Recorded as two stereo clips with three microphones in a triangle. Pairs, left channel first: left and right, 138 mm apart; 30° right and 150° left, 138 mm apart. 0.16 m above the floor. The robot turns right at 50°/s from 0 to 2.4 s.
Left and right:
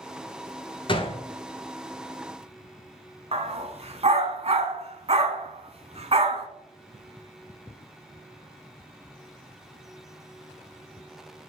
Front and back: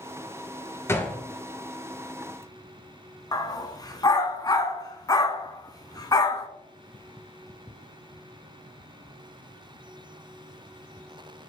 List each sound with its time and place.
0.9 s a gunshot: 40° left, 0.7 m; by 1.2 s 55° left, 0.7 m
3.3 s a dog barking: 80° right, 0.6 m